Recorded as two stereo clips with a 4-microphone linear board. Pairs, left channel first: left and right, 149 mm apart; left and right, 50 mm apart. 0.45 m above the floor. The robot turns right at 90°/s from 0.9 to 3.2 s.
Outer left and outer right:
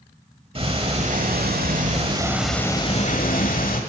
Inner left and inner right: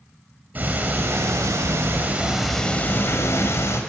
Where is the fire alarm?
No fire alarm in this recording.